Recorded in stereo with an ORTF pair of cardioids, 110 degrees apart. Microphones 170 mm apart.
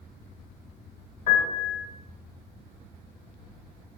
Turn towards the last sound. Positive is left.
turn(degrees=50)